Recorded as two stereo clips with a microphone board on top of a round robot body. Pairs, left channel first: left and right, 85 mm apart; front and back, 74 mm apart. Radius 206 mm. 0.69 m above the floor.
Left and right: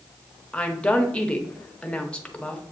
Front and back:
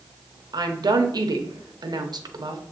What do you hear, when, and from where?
0.5 s a woman speaking: 165° left, 0.9 m